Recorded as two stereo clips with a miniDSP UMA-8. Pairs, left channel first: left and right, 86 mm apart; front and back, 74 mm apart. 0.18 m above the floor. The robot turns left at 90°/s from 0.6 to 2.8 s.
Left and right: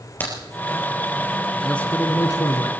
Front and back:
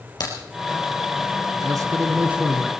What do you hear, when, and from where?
0.2 s a crack: 25° left, 4 m
1.6 s a man speaking: 175° left, 1.7 m; by 2.7 s 80° left, 1.7 m